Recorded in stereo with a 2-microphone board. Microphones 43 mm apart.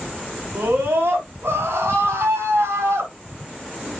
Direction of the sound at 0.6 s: 60° right (ahead or behind).